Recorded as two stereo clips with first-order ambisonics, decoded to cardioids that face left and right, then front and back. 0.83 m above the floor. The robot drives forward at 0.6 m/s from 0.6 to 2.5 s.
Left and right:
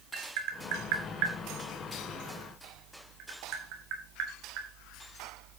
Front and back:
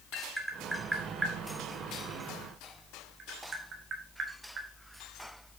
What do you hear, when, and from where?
0.1 s tapping: 95° right, 2.5 m; by 4.7 s 120° right, 2.5 m